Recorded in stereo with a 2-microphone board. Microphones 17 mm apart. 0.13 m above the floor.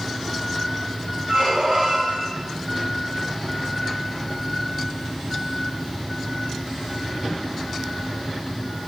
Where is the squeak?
65° right (ahead or behind), 4.5 m.